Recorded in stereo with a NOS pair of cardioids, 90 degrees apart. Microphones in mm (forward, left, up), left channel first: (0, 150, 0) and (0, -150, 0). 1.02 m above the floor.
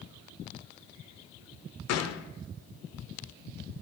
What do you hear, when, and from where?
1.9 s a gunshot: 60° left, 0.6 m